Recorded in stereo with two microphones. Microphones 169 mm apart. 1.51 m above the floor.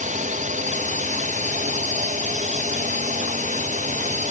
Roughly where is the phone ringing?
No phone ringing in this recording.